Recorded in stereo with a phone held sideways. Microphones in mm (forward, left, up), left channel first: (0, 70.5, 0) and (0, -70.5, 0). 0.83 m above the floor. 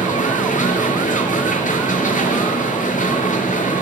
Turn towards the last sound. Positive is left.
turn(degrees=70)  # may be behind; listen again after turning